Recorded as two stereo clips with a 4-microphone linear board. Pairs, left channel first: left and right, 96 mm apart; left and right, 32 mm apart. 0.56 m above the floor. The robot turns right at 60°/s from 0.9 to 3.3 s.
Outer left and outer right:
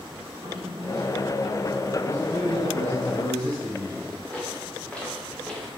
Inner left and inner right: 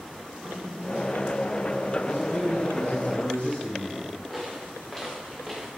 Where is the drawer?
40° right (ahead or behind), 4.5 m; by 1.3 s 15° right (ahead or behind), 4.5 m.